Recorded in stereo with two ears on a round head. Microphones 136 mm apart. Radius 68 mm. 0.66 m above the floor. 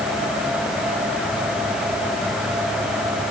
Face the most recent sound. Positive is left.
No sound to turn to.